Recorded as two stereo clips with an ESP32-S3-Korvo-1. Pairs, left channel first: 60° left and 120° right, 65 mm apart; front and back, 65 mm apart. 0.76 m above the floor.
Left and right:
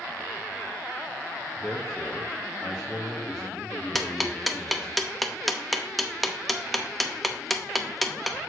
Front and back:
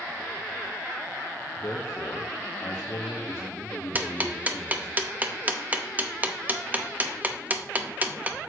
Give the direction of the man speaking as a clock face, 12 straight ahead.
1 o'clock.